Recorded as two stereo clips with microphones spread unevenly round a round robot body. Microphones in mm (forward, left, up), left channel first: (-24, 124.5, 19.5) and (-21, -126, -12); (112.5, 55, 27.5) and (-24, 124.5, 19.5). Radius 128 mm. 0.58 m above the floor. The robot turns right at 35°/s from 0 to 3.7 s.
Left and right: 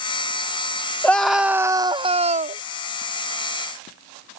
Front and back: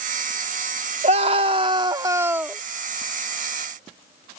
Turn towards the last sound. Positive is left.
turn(degrees=-85)